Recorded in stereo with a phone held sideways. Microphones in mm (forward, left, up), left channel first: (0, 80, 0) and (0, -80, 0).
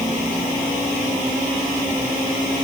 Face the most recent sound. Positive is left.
No sound to turn to.